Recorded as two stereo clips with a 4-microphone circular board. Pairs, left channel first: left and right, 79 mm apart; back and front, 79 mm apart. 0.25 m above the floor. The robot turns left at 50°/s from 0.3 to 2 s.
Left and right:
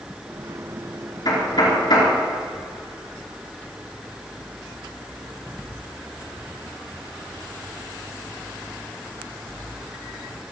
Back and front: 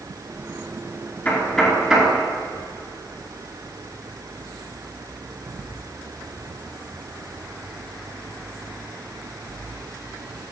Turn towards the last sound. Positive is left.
turn(degrees=75)